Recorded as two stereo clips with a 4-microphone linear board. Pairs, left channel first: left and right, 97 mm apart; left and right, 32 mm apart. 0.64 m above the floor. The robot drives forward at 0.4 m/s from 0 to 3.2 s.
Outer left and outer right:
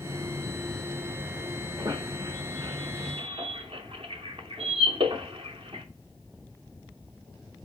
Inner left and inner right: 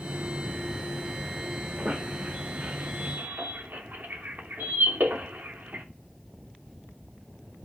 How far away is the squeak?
About 1.0 m.